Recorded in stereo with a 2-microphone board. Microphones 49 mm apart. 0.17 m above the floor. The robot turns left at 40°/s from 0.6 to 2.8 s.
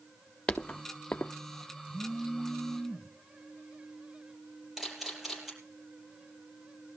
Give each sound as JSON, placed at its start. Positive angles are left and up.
{"t": 0.5, "sound": "footsteps", "side_deg": 15, "distance_m": 0.8}
{"t": 1.9, "sound": "a phone buzzing", "azimuth_deg": -150, "distance_m": 1.4}
{"t": 4.8, "sound": "a camera shutter", "side_deg": -5, "distance_m": 5.5}